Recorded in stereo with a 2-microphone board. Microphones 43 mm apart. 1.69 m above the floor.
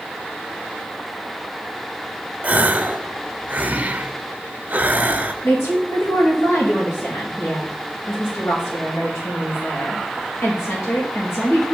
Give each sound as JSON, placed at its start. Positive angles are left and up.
{"t": 2.4, "sound": "a gasp", "side_deg": -35, "distance_m": 0.5}
{"t": 5.4, "sound": "a woman speaking", "side_deg": 85, "distance_m": 1.5}